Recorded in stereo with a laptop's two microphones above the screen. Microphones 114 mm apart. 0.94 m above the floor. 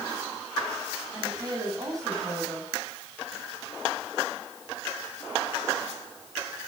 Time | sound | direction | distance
1.1 | a woman speaking | 30° right (ahead or behind) | 7 m